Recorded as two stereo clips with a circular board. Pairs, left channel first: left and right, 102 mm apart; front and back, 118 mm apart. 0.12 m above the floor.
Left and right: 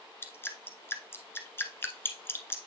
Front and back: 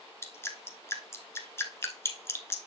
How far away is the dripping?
About 1.2 m.